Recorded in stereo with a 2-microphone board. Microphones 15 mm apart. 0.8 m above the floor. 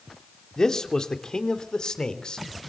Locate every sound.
0.6 s a man speaking: 45° left (ahead or behind), 2.5 m; by 2.7 s 60° left (ahead or behind), 3.5 m